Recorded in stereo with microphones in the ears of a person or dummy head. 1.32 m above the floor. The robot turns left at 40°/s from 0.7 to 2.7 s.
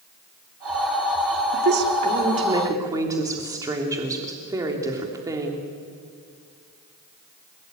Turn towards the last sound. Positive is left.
turn(degrees=-160)